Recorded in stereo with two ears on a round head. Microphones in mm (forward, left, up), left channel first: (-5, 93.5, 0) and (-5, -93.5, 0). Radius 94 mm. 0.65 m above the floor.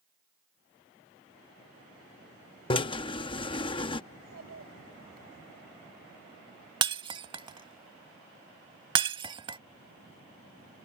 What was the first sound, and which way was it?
A drill, 25° left (ahead or behind).